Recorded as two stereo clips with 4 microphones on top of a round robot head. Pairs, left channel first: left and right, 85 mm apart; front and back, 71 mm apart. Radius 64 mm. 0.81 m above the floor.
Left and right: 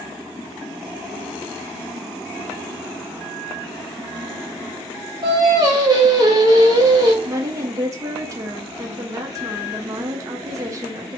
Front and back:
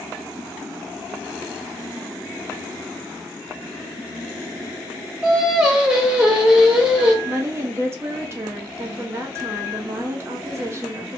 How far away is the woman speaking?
About 0.7 m.